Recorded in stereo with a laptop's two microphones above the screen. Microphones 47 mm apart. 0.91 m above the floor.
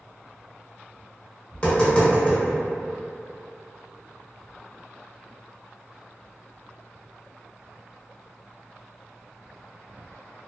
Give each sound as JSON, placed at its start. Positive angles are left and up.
{"t": 1.5, "sound": "tapping", "side_deg": 20, "distance_m": 0.8}